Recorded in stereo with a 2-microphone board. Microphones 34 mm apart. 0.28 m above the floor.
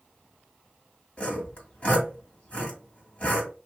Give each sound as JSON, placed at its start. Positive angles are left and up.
{"t": 1.2, "sound": "sawing", "side_deg": 40, "distance_m": 1.9}